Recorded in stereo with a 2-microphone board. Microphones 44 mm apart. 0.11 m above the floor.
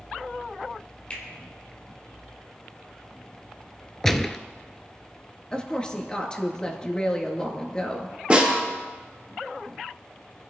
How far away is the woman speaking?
About 1.8 m.